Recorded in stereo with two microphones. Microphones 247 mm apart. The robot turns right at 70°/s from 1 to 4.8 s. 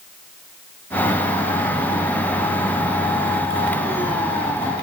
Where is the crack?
I don't hear a crack.